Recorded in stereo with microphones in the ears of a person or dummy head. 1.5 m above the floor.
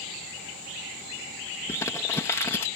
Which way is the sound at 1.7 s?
15° left (ahead or behind).